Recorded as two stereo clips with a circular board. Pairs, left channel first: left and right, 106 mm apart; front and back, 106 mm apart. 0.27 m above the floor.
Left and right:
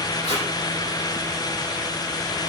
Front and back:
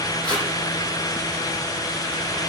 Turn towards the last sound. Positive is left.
turn(degrees=80)